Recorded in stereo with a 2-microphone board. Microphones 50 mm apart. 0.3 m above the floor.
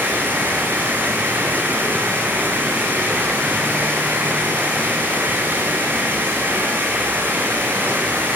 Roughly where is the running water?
Right.